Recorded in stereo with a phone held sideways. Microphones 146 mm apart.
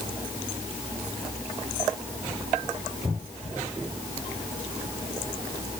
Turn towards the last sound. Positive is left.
No sound to turn to.